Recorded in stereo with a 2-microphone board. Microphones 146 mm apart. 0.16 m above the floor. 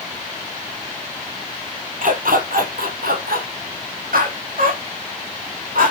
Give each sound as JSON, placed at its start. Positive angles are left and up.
{"t": 2.0, "sound": "a dog barking", "side_deg": -70, "distance_m": 2.0}